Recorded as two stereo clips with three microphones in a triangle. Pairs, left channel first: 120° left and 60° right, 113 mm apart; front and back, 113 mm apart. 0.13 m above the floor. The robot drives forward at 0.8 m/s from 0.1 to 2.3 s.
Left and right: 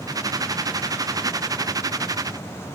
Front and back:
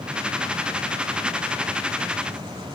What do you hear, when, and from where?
Only background noise.